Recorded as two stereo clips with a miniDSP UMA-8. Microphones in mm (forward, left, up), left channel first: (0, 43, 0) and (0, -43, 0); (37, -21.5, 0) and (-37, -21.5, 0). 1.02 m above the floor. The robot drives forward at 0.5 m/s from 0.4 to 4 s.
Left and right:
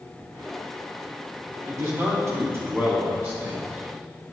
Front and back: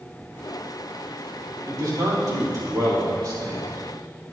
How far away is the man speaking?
About 2.5 m.